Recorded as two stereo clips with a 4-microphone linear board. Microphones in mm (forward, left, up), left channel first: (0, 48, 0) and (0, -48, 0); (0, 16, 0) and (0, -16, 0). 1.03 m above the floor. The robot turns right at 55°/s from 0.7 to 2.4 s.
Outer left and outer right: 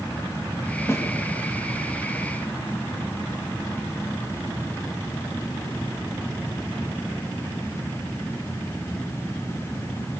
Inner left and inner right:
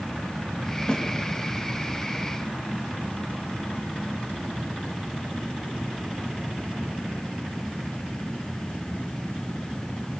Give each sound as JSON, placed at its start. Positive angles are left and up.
{"t": 0.9, "sound": "a snare drum", "side_deg": 25, "distance_m": 3.5}